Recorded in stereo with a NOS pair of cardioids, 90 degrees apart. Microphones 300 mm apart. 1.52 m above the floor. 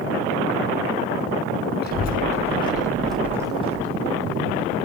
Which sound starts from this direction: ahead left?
A child speaking, at 1.8 s.